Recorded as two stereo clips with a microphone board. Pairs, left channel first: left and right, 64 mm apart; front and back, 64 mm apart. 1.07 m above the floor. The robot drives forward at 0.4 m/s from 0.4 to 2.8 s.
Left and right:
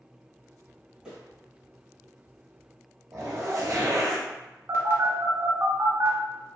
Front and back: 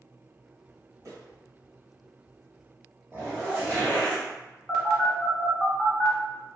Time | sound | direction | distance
1.1 | footsteps | 160° right | 1.7 m
3.1 | a zipper | 125° right | 1.0 m
4.7 | a phone buzzing | 85° right | 0.9 m